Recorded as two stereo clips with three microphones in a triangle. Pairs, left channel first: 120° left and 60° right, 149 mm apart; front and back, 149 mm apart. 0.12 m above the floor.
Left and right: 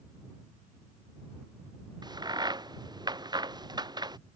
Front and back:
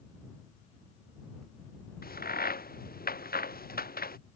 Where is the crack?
Straight ahead.